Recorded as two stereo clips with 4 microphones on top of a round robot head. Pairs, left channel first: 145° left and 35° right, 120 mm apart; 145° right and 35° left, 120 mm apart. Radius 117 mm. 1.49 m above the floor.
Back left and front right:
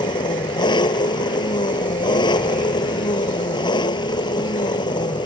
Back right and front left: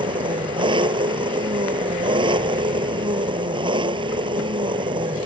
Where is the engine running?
90° left.